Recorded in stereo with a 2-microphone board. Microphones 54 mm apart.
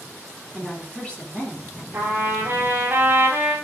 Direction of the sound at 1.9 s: 40° right (ahead or behind).